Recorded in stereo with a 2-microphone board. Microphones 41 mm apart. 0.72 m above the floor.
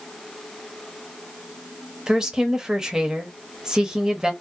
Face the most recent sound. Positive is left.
turn(degrees=-15)  # may be behind; listen again after turning